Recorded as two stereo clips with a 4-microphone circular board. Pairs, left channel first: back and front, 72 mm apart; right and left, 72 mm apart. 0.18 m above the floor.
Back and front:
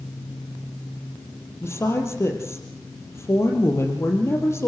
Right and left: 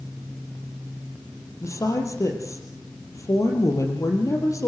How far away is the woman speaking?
About 4.5 m.